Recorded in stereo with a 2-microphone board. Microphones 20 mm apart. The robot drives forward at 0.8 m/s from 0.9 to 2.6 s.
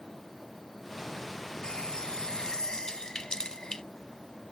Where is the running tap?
45° left (ahead or behind); by 3.8 s 40° left (ahead or behind).